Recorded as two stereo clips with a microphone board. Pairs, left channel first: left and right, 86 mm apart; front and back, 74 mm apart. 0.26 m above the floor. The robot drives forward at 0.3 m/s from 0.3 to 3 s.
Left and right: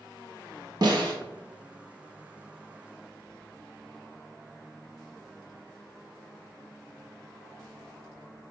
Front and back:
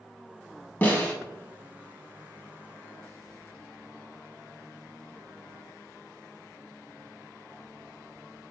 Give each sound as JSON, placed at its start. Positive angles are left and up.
{"t": 0.8, "sound": "a snare drum", "azimuth_deg": -65, "distance_m": 0.5}